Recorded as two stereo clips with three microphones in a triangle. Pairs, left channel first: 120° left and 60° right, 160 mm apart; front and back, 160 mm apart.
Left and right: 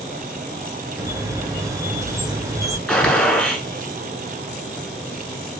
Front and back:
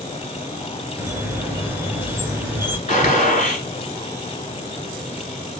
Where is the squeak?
115° right, 0.9 m.